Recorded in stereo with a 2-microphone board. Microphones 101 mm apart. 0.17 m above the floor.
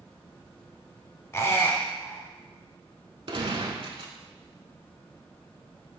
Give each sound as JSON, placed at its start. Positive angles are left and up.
{"t": 1.3, "sound": "a squeak", "side_deg": 25, "distance_m": 0.8}
{"t": 3.3, "sound": "a gunshot", "side_deg": -60, "distance_m": 0.6}